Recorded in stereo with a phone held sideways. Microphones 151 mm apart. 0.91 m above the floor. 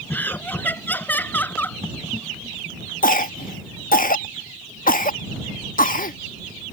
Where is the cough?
80° left.